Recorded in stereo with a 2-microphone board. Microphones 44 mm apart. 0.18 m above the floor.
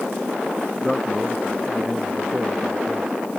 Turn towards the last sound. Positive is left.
turn(degrees=-5)  # may be behind; listen again after turning